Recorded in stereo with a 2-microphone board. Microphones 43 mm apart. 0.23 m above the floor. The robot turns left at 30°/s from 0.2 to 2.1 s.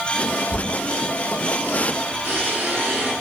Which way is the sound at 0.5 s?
10° left (ahead or behind).